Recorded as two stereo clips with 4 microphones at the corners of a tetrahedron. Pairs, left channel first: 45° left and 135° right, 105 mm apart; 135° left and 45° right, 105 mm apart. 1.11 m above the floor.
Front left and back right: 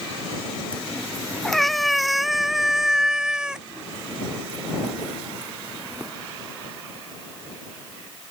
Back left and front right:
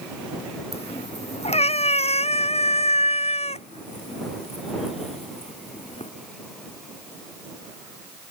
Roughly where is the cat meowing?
Behind left.